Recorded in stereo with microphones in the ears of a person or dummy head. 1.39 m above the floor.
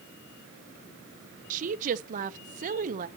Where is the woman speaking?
45° right (ahead or behind), 0.7 m.